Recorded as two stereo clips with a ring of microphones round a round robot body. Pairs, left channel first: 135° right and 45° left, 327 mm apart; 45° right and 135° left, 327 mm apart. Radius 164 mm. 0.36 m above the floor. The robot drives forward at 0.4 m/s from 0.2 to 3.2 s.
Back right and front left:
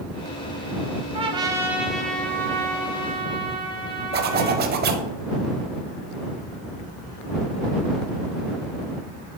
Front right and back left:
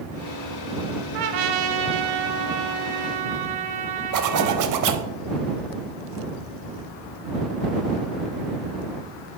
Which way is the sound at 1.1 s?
115° left.